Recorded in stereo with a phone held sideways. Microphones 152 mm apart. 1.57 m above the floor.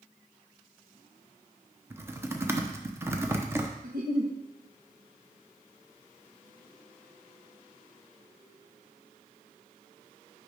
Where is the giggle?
70° right (ahead or behind), 1.3 m.